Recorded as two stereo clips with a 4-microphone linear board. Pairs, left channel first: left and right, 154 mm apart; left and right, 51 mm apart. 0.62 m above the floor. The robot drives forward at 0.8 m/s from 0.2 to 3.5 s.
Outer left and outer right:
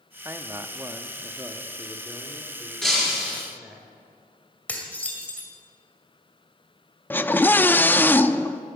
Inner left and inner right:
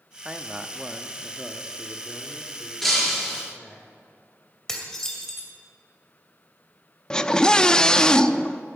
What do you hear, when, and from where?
0.2 s a man speaking: 15° right (ahead or behind), 0.8 m; by 3.8 s 5° right (ahead or behind), 2.5 m
2.8 s breaking glass: 5° left (ahead or behind), 4.5 m
4.7 s dishes clattering: 10° left (ahead or behind), 2 m
7.1 s a scream: 15° left (ahead or behind), 0.5 m